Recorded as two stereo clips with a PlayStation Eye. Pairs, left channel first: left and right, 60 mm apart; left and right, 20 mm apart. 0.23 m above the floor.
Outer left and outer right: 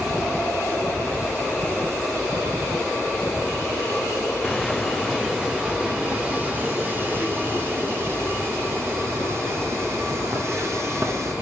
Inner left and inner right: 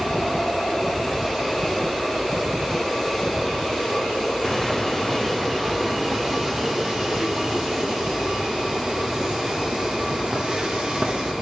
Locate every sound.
4.4 s footsteps: 5° left (ahead or behind), 1.5 m; by 11.3 s 50° right (ahead or behind), 4.5 m